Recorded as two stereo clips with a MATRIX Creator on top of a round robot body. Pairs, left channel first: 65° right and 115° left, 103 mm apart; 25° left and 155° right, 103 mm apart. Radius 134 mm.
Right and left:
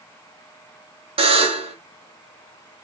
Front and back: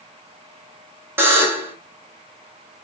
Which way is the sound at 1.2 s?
135° left.